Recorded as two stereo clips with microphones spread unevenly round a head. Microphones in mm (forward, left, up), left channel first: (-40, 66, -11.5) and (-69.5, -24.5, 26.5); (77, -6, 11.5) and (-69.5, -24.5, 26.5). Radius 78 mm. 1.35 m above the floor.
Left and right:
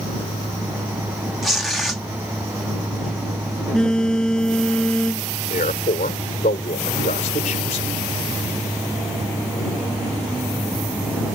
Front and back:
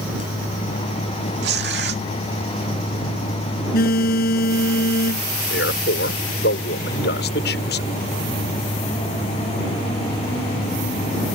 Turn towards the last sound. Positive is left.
turn(degrees=35)